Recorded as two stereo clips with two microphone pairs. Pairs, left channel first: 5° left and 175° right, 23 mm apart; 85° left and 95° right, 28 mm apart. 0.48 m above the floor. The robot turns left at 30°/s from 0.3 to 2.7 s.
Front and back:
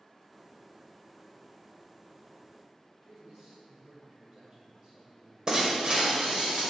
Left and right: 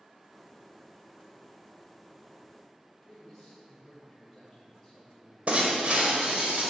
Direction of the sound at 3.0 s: 170° left.